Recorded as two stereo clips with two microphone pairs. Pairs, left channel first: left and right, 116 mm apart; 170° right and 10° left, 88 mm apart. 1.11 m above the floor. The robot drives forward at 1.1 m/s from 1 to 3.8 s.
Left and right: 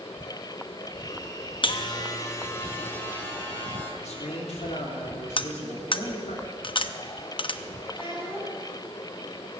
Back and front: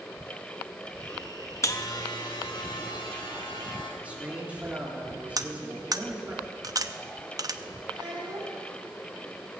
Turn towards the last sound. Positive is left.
turn(degrees=45)